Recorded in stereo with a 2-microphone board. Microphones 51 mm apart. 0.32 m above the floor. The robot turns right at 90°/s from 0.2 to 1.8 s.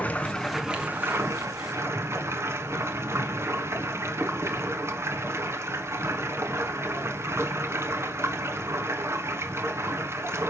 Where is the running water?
150° left, 1.8 m; by 10.5 s 70° right, 1.8 m.